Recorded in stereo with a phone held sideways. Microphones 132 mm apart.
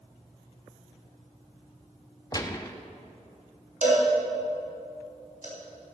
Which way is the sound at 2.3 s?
30° left (ahead or behind).